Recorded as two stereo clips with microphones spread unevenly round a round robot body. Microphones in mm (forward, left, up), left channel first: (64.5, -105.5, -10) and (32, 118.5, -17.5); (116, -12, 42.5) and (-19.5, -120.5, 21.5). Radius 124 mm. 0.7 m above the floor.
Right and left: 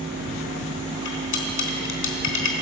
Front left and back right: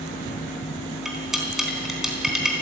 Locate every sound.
1.1 s cutlery clinking: 55° right, 3.5 m